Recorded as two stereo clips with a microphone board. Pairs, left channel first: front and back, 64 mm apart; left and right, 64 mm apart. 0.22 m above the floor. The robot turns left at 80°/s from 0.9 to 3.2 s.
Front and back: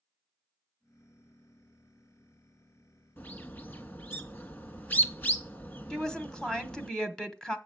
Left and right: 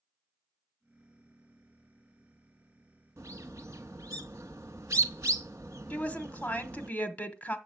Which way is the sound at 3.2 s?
55° right.